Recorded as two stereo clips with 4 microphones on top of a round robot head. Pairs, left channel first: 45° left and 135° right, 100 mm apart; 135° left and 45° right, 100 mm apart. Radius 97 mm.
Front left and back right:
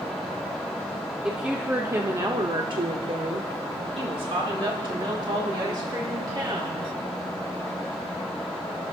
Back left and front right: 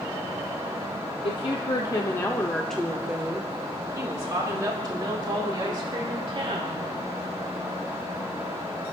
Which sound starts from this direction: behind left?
A woman speaking, at 1.2 s.